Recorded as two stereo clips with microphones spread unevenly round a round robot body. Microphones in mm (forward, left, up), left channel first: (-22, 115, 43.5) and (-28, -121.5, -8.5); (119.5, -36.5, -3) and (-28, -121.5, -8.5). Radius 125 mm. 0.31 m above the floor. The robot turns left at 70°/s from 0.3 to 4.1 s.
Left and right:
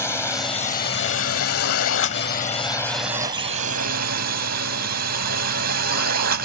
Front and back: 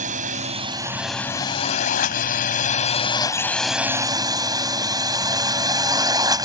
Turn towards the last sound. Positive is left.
turn(degrees=-90)